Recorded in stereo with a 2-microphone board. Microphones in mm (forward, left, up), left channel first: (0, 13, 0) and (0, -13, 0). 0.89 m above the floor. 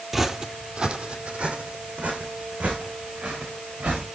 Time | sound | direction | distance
0.1 | footsteps | 10° right (ahead or behind) | 0.9 m